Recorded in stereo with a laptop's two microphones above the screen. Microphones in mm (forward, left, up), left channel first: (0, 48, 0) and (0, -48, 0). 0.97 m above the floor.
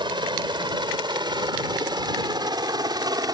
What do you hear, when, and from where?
0.0 s a helicopter: 55° right (ahead or behind); by 3.4 s 45° right (ahead or behind)